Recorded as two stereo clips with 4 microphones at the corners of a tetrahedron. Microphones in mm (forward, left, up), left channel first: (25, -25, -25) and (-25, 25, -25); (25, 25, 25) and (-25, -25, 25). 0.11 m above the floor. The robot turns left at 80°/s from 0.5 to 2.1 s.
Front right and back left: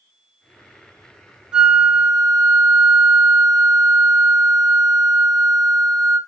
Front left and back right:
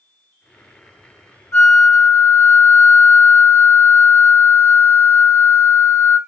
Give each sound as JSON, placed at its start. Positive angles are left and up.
{"t": 1.5, "sound": "a flute", "azimuth_deg": 80, "distance_m": 1.1}